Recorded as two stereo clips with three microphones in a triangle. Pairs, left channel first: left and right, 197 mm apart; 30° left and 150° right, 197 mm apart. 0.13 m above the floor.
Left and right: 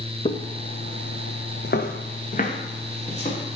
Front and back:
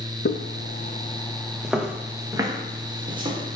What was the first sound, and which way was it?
Footsteps, 30° left.